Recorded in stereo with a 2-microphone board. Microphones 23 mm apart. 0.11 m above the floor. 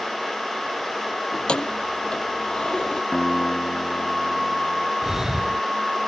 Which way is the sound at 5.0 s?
20° right (ahead or behind).